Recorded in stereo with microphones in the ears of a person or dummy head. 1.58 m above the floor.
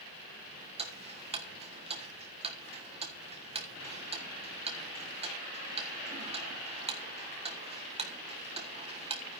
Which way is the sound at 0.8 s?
25° right (ahead or behind).